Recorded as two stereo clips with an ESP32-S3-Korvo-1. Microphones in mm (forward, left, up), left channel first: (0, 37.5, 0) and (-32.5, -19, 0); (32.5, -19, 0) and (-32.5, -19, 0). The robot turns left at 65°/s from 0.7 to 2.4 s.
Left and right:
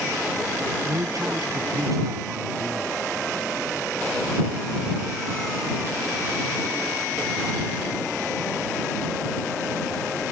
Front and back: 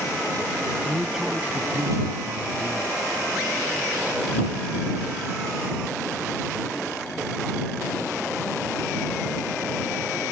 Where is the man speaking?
75° right; by 2.9 s 175° right.